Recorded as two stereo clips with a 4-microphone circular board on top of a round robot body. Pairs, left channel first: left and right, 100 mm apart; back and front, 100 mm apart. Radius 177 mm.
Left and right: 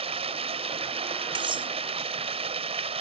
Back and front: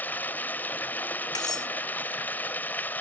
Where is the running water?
105° right.